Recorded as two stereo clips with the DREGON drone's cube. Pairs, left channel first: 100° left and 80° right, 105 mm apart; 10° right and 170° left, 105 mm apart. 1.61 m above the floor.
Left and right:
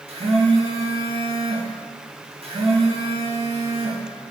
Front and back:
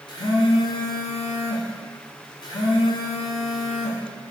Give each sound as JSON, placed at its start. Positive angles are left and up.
{"t": 0.1, "sound": "a phone buzzing", "azimuth_deg": -60, "distance_m": 0.7}